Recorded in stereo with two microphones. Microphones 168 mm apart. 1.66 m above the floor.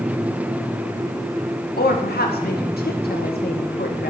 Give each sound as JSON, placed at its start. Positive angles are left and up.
{"t": 1.8, "sound": "a woman speaking", "side_deg": 75, "distance_m": 1.6}